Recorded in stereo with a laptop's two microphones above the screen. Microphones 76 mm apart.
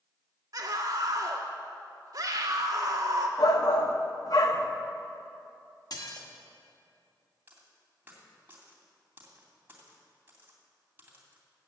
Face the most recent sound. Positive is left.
turn(degrees=-25)  # may be behind; listen again after turning